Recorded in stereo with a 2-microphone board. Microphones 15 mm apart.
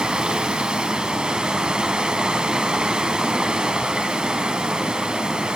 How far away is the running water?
About 1.3 m.